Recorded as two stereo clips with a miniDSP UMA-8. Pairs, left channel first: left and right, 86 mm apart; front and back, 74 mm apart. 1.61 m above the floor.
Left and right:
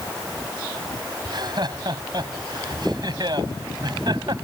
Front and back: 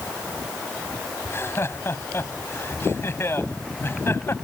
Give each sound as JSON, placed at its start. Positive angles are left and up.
{"t": 1.2, "sound": "laughter", "azimuth_deg": -55}